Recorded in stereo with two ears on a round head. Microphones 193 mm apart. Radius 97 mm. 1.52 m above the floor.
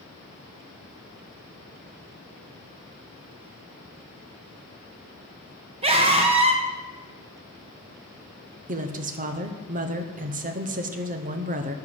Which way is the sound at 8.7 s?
40° right (ahead or behind).